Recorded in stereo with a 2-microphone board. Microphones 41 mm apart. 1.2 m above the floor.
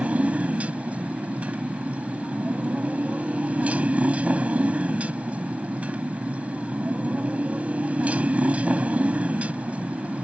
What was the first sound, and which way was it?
A motorcycle, 35° right (ahead or behind).